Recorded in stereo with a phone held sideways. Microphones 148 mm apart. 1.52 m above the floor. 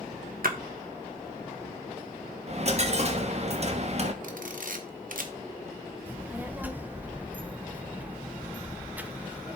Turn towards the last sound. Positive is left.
turn(degrees=-10)  # may be behind; listen again after turning